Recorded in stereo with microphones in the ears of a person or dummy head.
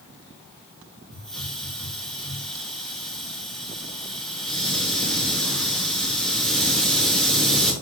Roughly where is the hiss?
Centre.